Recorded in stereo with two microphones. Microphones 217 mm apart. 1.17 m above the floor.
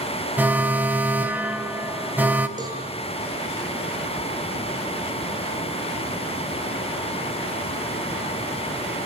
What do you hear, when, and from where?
0.4 s an alarm: 10° right (ahead or behind), 1.5 m
2.6 s a cowbell: 20° right (ahead or behind), 5 m